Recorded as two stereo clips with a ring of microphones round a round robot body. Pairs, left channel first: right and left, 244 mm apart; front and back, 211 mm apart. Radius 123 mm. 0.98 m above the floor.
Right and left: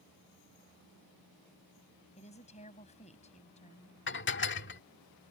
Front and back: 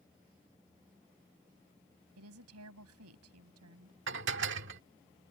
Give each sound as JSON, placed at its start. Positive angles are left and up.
{"t": 2.2, "sound": "a woman speaking", "azimuth_deg": -155}
{"t": 4.1, "sound": "dishes clattering", "azimuth_deg": -135}